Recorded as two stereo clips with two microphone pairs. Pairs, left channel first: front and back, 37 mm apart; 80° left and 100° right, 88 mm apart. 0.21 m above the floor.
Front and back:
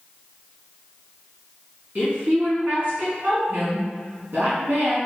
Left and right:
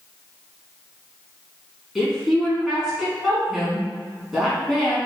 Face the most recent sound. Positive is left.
turn(degrees=170)